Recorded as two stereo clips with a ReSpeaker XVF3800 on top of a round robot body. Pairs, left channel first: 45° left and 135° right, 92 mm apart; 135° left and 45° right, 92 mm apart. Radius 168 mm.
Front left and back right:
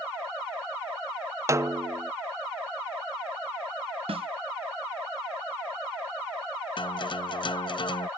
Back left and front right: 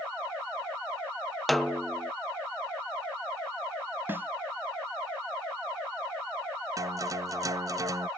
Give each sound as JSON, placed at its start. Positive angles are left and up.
{"t": 1.5, "sound": "a snare drum", "azimuth_deg": -135}
{"t": 4.1, "sound": "a snare drum", "azimuth_deg": -115}
{"t": 6.8, "sound": "a guitar", "azimuth_deg": 10}